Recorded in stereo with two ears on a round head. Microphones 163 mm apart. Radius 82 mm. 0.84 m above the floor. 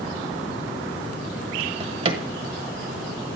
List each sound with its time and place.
1.6 s a drawer: 35° right (ahead or behind), 1.2 m